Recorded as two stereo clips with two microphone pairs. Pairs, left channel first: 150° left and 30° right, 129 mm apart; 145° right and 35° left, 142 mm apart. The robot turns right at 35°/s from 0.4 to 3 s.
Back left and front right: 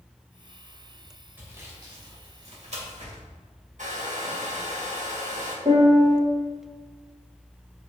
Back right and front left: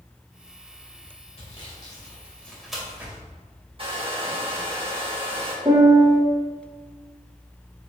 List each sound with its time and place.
1.4 s sawing: 105° right, 2.5 m; by 3.2 s 45° right, 2.5 m
3.8 s a hair dryer: 15° right, 1.5 m
5.7 s a piano: 15° right, 2 m